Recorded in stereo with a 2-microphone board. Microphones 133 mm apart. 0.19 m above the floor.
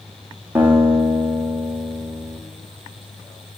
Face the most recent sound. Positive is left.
turn(degrees=-10)  # may be behind; listen again after turning